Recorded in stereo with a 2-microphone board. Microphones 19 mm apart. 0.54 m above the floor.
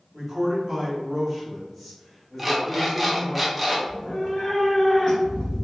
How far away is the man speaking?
About 1.0 m.